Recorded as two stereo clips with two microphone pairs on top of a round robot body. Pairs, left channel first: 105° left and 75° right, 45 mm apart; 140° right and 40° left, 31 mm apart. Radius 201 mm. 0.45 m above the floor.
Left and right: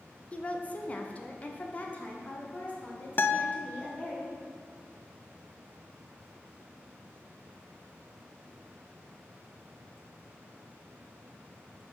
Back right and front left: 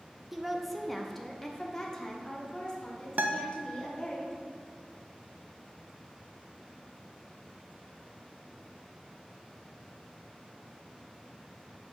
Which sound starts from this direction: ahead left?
A guitar, at 3.2 s.